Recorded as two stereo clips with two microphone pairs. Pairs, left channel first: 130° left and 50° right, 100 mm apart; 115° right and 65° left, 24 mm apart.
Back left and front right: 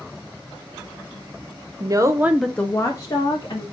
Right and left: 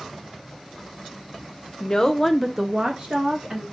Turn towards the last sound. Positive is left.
turn(degrees=95)